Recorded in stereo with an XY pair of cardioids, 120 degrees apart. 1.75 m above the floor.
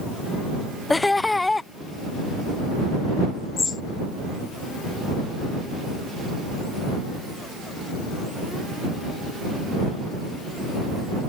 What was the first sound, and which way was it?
Laughter, 15° left.